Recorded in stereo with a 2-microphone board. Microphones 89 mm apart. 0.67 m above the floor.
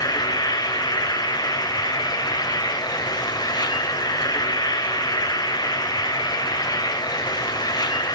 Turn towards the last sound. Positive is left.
turn(degrees=50)  # may be behind; listen again after turning